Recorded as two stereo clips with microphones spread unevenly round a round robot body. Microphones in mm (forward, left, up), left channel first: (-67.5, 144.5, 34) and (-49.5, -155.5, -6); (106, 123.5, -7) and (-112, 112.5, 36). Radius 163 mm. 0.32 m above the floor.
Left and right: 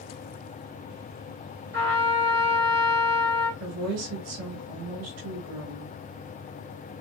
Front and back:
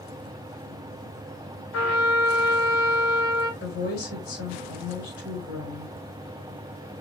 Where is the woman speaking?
50° right, 4 m.